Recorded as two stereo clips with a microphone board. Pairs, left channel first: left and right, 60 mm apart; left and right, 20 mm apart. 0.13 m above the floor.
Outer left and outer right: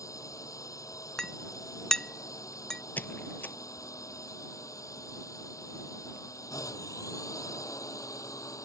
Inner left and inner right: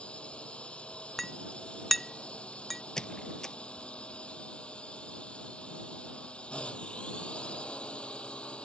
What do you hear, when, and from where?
0.0 s a drone: 70° left (ahead or behind)
1.2 s a clink: 10° left (ahead or behind)
3.0 s a squeak: 35° left (ahead or behind)